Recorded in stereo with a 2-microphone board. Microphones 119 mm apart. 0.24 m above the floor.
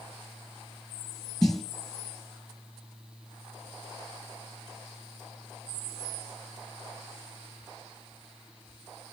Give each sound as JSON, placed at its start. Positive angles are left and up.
{"t": 1.4, "sound": "a snare drum", "side_deg": 5, "distance_m": 3.0}